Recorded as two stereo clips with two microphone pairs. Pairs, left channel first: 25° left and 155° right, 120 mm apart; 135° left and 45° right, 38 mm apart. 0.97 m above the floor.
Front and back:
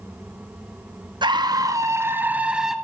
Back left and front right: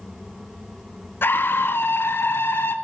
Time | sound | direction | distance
1.2 | a scream | 160° left | 1.4 m